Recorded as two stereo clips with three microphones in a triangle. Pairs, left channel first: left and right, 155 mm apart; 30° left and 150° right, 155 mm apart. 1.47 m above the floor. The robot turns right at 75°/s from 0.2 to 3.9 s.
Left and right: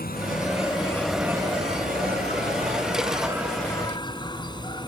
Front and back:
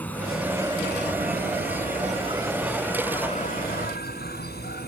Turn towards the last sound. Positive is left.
turn(degrees=30)